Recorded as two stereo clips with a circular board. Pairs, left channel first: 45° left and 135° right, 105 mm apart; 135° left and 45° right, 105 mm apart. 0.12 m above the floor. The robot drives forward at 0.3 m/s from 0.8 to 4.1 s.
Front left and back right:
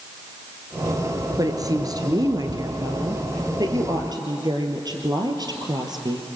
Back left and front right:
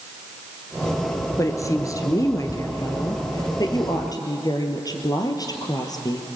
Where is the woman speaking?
175° right, 1.8 m.